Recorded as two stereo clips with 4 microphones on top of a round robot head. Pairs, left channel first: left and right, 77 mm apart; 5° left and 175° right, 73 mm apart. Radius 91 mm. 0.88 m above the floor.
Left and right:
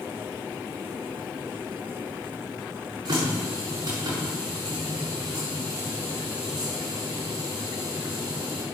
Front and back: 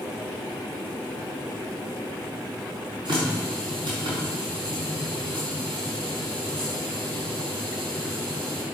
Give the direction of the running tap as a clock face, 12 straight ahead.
5 o'clock.